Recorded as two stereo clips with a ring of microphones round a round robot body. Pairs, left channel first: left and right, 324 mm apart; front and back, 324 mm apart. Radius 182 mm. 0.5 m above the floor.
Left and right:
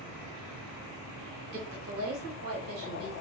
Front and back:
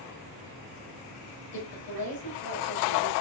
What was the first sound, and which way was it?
A woman speaking, 30° right.